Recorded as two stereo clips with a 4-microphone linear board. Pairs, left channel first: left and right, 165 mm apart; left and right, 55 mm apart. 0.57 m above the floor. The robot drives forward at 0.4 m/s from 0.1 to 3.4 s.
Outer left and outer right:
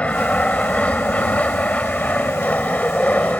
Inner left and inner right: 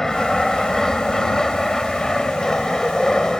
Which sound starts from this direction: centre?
An aircraft, at 0.0 s.